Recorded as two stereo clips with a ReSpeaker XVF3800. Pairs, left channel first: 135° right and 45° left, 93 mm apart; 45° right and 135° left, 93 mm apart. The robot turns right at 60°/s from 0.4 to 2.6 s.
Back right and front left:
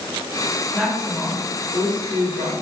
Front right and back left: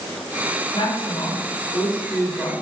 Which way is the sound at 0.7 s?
55° right.